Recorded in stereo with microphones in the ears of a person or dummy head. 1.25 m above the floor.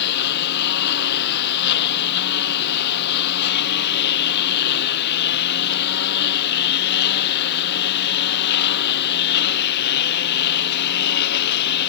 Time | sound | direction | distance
0.0 | a lawn mower | 65° left (ahead or behind) | ?